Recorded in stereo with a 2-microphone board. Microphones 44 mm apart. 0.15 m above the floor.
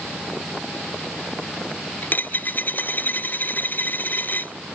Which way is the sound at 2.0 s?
45° left (ahead or behind).